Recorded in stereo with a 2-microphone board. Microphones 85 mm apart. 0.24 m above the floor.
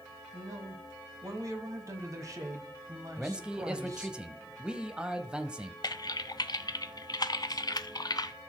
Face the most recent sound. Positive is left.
turn(degrees=50)  # may be behind; listen again after turning